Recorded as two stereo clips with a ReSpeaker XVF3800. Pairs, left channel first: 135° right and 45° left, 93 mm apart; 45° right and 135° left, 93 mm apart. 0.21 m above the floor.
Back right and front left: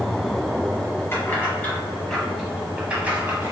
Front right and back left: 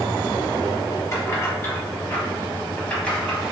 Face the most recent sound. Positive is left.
turn(degrees=35)